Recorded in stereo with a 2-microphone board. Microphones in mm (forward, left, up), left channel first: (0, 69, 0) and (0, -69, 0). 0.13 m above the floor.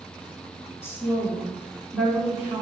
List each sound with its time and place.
0.8 s a woman speaking: 20° left (ahead or behind), 1.3 m; by 2.6 s 15° right (ahead or behind), 1.0 m